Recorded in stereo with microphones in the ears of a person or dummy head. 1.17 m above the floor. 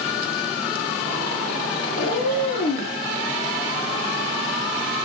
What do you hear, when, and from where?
1.9 s a cat meowing: 45° left (ahead or behind), 3.5 m